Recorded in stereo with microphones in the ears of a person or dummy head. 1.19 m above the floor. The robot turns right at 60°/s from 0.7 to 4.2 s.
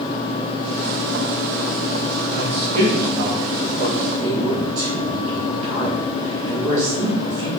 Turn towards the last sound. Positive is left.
turn(degrees=-45)  # may be behind; listen again after turning